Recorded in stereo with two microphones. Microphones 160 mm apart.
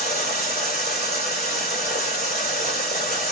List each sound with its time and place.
0.0 s running water: 70° left (ahead or behind), 1.5 m